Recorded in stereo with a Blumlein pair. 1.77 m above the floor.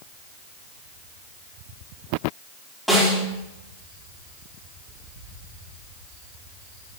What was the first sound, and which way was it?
A snare drum, 5° left.